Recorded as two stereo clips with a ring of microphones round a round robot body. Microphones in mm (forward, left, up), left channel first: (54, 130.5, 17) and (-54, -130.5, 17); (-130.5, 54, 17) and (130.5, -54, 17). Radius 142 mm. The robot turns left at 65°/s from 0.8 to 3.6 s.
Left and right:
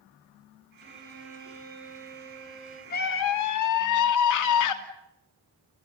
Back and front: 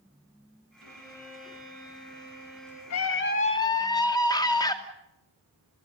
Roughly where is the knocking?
No knocking in this recording.